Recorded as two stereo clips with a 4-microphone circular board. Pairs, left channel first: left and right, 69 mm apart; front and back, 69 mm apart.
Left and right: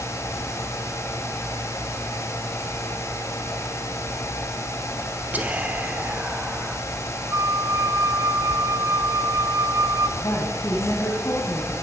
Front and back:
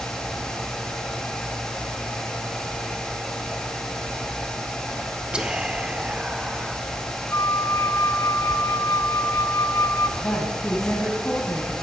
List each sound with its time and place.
5.3 s whispering: 120° right, 0.8 m
7.3 s a flute: 50° right, 0.8 m
10.2 s a woman speaking: 55° left, 4 m